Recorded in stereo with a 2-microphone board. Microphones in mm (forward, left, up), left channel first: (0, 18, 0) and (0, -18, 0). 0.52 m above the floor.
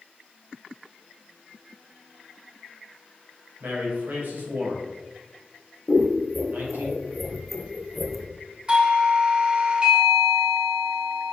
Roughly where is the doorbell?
Right.